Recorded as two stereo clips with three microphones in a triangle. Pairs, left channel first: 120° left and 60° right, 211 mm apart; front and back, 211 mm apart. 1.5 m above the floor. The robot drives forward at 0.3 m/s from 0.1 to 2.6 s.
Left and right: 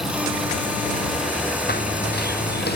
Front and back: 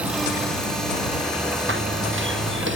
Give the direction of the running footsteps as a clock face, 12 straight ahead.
7 o'clock.